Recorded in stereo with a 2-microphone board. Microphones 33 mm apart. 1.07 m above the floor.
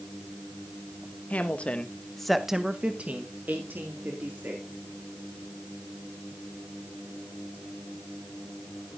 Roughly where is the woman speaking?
Left.